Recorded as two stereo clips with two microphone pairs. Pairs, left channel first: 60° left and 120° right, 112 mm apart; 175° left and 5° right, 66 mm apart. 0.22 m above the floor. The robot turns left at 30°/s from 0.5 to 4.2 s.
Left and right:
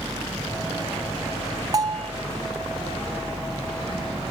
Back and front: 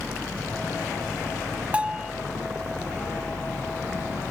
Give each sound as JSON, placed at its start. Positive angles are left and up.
{"t": 1.7, "sound": "a bell", "azimuth_deg": -75}